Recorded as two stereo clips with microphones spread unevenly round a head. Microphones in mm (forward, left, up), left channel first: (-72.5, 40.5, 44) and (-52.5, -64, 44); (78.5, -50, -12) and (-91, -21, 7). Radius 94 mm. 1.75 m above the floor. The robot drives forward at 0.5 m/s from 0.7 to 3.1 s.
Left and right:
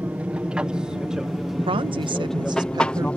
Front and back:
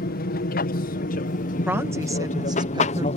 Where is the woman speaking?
115° right; by 3.1 s 130° right.